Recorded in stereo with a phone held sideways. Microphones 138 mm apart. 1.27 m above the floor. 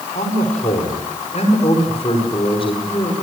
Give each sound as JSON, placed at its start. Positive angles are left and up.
{"t": 0.1, "sound": "a man speaking", "side_deg": 65, "distance_m": 5.0}